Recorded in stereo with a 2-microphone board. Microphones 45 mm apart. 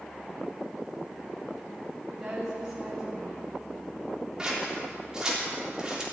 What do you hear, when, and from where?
2.1 s a woman speaking: 15° right (ahead or behind), 2 m
4.4 s scissors: 20° right (ahead or behind), 3.5 m